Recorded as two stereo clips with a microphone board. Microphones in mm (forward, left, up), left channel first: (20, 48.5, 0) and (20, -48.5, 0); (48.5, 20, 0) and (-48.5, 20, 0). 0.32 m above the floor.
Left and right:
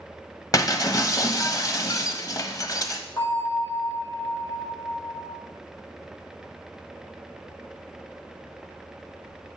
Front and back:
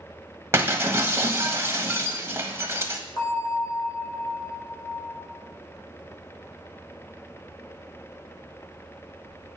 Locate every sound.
0.5 s breaking glass: 125° left, 1.2 m
3.2 s a bell: 45° left, 5.5 m